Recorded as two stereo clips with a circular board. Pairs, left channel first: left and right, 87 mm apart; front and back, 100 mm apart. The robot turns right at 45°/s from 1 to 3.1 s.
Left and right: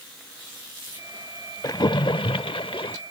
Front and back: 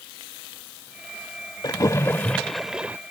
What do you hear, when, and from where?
1.6 s a splash: 45° left; by 3.0 s 105° left